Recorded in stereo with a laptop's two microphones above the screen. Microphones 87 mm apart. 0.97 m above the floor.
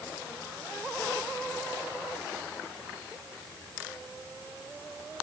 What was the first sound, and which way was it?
Only background noise.